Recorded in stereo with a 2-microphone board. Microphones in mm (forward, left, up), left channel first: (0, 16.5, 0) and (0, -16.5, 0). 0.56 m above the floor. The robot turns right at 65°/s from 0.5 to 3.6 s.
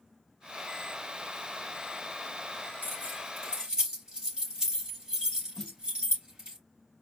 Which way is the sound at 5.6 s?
5° left (ahead or behind).